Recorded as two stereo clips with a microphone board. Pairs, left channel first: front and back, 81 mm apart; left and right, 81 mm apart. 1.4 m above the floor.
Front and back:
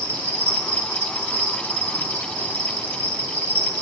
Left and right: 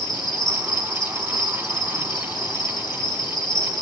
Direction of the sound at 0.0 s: 120° left.